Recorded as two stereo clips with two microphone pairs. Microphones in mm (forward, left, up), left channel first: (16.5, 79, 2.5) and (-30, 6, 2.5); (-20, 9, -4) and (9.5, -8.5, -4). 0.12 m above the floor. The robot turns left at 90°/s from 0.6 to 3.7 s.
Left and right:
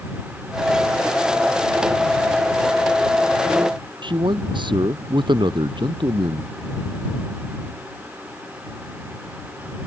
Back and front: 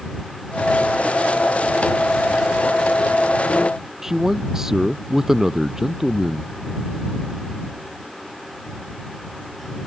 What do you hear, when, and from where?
4.0 s a man speaking: 110° right